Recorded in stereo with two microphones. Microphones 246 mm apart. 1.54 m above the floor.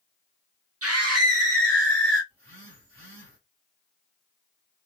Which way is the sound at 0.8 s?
65° right (ahead or behind).